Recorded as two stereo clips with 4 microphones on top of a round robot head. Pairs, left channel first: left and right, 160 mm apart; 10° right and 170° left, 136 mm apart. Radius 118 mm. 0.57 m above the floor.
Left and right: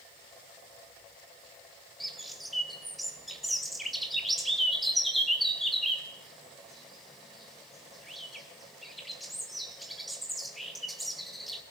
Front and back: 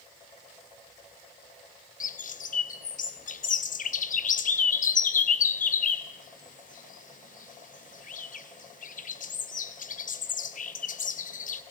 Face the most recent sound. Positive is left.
turn(degrees=0)